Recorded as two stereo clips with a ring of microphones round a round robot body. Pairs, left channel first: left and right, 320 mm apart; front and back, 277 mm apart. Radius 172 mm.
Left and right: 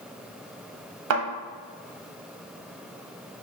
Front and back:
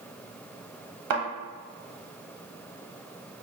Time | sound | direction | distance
1.1 | a thud | 140° right | 0.7 m